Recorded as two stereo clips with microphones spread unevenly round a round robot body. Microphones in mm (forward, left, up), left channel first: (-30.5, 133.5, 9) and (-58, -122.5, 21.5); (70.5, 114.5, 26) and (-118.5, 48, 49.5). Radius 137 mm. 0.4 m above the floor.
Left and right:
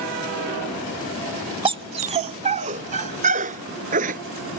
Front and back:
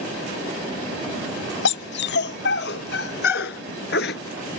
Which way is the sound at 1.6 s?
20° right.